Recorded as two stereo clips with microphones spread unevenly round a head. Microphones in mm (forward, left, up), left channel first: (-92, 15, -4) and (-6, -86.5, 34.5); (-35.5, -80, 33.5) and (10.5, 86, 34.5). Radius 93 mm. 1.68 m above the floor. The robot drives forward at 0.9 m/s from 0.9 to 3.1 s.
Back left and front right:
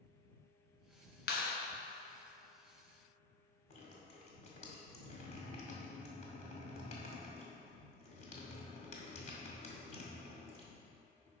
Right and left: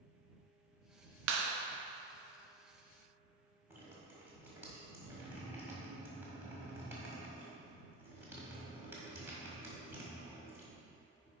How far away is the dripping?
About 1.7 m.